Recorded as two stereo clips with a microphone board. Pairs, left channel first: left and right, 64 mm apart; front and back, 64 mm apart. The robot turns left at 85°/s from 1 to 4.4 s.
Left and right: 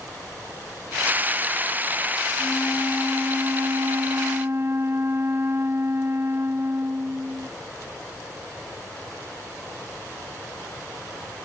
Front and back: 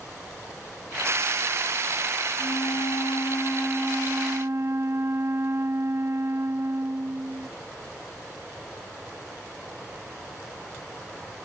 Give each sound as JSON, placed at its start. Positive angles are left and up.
{"t": 2.4, "sound": "a flute", "azimuth_deg": 35}